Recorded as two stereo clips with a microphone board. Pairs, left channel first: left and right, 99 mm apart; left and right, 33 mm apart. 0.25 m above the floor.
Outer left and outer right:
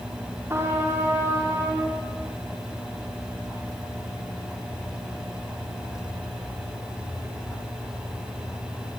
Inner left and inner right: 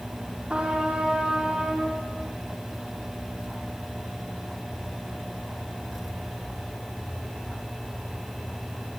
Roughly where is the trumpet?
Right.